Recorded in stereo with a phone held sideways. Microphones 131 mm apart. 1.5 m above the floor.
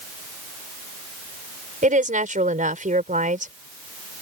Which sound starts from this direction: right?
A woman speaking, at 1.8 s.